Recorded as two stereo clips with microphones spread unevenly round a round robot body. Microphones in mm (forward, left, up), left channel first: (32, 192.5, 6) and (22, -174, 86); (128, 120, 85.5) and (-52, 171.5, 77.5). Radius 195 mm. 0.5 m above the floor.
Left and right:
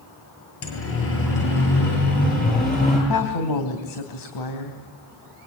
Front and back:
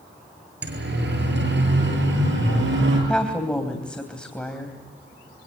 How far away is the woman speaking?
About 3.5 m.